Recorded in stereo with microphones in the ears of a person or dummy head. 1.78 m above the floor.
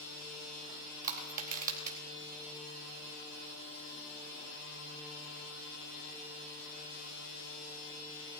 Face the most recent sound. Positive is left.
turn(degrees=-50)  # may be behind; listen again after turning